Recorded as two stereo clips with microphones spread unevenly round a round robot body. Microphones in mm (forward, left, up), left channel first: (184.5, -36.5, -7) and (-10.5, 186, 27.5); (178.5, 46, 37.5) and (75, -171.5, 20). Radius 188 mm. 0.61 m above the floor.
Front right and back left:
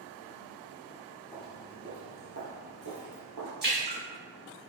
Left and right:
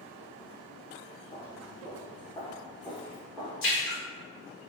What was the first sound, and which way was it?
Footsteps, 40° left.